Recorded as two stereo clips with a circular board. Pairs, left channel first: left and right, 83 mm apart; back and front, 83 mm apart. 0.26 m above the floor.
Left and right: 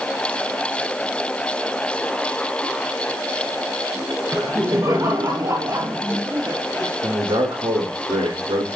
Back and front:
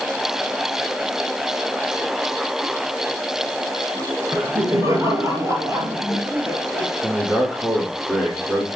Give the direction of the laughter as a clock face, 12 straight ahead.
1 o'clock.